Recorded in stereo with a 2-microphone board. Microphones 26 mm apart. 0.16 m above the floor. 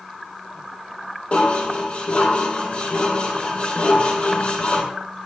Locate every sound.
1.3 s dishes clattering: 50° left (ahead or behind), 4 m